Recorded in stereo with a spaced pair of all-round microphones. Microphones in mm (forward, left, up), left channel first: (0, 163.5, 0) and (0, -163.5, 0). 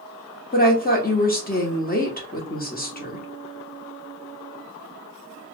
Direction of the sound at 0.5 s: 30° left (ahead or behind).